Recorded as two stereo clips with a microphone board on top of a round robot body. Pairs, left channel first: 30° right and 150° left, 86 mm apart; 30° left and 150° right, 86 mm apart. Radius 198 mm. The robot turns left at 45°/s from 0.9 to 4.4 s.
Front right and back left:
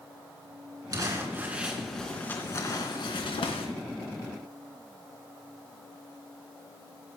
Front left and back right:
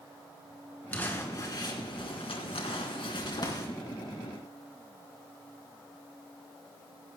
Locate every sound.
0.9 s crumpling: 105° left, 3 m; by 3.7 s 20° right, 3 m